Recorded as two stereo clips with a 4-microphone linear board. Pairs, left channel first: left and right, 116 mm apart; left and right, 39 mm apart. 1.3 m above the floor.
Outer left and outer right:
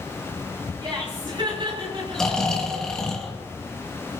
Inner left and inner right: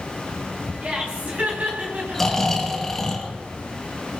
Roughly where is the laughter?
Right.